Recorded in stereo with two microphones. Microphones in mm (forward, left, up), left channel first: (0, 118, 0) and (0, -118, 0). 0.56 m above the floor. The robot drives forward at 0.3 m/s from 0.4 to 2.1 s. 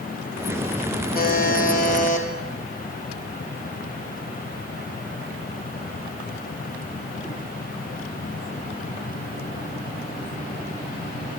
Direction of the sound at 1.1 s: 40° left (ahead or behind).